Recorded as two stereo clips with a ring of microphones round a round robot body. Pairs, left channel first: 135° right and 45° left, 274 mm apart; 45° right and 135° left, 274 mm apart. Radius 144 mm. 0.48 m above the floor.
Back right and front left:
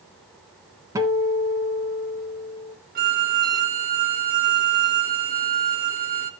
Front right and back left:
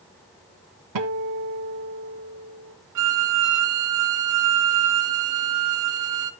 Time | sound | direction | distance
0.9 | a guitar | 125° left | 1.4 m
3.0 | a violin | 105° left | 1.0 m